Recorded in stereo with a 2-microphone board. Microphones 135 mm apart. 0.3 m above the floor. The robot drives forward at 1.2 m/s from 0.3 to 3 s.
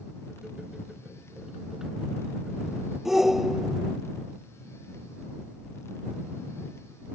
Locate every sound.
3.0 s a shout: 5° right (ahead or behind)